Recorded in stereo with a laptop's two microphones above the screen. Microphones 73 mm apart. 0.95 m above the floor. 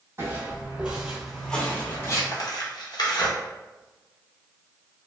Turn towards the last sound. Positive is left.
turn(degrees=65)  # may be behind; listen again after turning